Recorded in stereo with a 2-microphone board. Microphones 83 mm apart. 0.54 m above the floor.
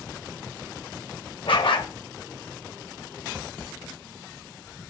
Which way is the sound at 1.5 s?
85° left.